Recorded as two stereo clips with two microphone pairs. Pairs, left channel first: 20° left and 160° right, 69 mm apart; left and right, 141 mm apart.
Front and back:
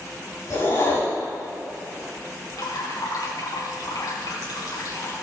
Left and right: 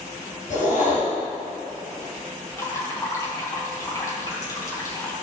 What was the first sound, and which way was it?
A whoosh, 65° left.